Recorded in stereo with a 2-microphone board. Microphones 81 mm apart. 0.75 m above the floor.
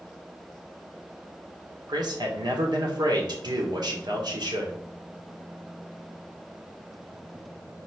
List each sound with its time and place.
1.9 s a man speaking: 65° right (ahead or behind), 1.9 m